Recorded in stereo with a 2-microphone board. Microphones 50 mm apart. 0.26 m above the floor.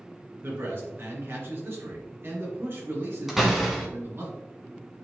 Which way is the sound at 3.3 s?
5° right (ahead or behind).